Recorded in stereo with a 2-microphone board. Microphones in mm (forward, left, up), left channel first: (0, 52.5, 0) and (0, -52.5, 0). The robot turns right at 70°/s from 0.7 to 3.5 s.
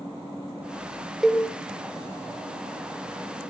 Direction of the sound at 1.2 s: Centre (ahead or behind).